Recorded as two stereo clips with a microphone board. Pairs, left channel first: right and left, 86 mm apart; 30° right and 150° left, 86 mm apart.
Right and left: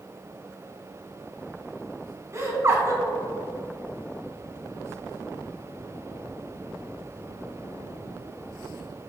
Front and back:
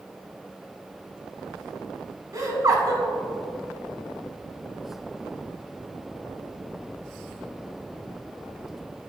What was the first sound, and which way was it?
Laughter, 130° left.